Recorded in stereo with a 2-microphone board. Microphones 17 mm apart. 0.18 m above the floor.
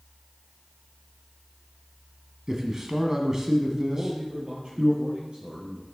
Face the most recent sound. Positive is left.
turn(degrees=-55)  # may be behind; listen again after turning